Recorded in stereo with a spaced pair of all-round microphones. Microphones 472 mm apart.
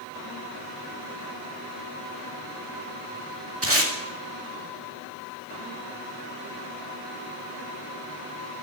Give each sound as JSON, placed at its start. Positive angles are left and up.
{"t": 3.6, "sound": "tape being pulled", "side_deg": -30, "distance_m": 2.0}